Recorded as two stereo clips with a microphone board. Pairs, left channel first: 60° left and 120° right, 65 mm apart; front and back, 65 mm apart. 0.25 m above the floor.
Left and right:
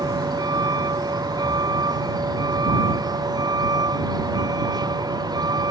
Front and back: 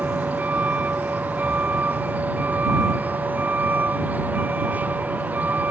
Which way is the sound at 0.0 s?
115° right.